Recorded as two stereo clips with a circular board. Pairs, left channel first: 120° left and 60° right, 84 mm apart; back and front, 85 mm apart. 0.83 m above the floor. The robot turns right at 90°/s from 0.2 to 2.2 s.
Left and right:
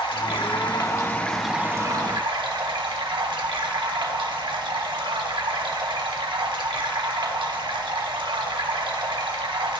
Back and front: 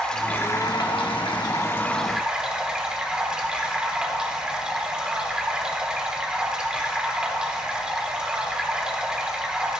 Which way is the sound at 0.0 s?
100° left.